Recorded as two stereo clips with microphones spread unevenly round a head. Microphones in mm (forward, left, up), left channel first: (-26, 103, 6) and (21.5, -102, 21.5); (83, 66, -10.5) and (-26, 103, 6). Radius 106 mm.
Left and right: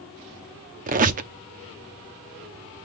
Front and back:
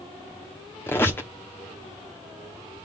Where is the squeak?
95° right, 0.7 m.